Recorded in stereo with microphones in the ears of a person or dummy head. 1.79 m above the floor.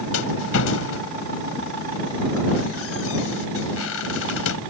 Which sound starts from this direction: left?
A rattle, at 0.1 s.